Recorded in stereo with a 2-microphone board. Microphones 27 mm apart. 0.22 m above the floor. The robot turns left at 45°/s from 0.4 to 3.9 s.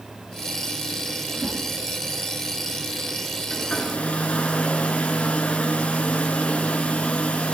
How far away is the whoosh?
About 3 m.